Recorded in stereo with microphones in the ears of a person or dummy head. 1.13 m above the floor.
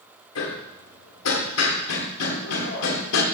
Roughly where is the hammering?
Left.